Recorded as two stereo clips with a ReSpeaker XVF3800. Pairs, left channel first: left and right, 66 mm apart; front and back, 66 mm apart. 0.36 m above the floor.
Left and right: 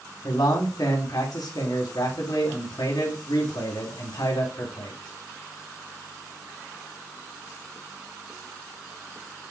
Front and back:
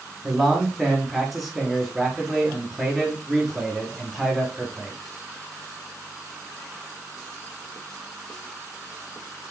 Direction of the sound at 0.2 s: 90° left.